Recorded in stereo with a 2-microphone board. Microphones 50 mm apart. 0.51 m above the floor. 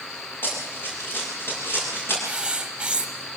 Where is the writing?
20° right (ahead or behind), 1.8 m.